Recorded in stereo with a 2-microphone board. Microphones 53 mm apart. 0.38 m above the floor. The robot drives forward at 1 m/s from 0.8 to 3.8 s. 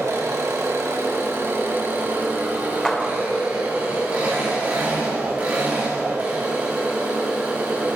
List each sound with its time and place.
0.0 s an engine running: 60° right (ahead or behind), 2 m; by 8.0 s 25° right (ahead or behind), 4 m
2.9 s a clap: 10° left (ahead or behind), 0.7 m; by 3.2 s 5° left (ahead or behind), 1.0 m